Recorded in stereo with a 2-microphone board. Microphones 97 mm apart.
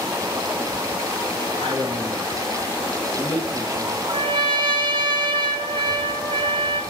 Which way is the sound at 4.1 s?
55° right (ahead or behind).